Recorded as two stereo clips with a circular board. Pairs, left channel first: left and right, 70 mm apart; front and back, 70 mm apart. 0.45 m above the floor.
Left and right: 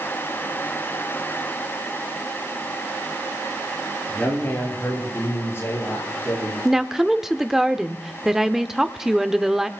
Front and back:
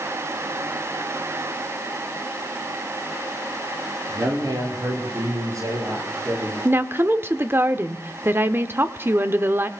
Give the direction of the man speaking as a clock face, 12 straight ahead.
7 o'clock.